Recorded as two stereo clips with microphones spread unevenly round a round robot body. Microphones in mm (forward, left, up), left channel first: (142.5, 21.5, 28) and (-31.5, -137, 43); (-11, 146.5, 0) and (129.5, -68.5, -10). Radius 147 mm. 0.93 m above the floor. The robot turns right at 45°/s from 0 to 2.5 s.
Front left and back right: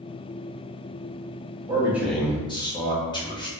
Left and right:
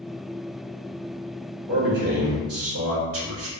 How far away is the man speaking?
About 1.2 m.